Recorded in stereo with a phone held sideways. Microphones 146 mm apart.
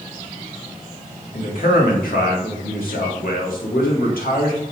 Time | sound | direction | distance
1.3 | a man speaking | 80° left | 1.5 m